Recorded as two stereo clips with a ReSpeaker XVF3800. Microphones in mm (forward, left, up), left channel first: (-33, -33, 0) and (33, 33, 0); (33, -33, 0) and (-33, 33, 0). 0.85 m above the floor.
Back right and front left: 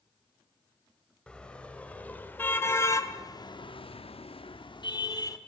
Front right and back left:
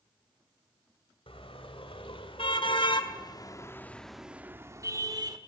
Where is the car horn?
55° right, 2.5 m; by 5.4 s 175° left, 1.4 m.